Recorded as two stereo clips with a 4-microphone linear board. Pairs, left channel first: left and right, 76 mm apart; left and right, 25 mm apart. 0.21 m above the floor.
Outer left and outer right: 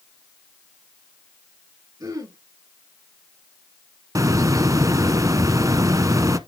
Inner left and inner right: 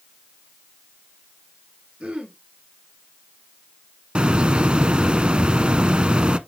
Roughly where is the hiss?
Right.